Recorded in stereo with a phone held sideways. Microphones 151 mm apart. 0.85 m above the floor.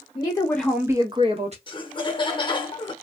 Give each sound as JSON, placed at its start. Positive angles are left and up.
{"t": 0.1, "sound": "a woman speaking", "side_deg": 35, "distance_m": 0.8}
{"t": 1.7, "sound": "laughter", "side_deg": 35, "distance_m": 0.9}